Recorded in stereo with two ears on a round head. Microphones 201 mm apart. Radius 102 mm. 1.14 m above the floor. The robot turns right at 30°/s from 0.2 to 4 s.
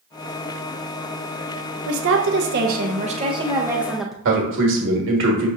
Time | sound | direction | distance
1.9 | a woman speaking | 65° right | 0.6 m
4.2 | a man speaking | 55° right (ahead or behind) | 1.2 m